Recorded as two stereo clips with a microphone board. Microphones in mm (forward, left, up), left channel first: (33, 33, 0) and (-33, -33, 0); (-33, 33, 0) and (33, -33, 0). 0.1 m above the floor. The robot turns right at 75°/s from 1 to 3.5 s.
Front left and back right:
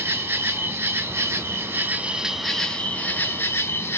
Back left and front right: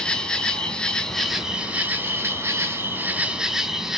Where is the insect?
155° right, 0.7 m; by 4.0 s 30° left, 0.7 m.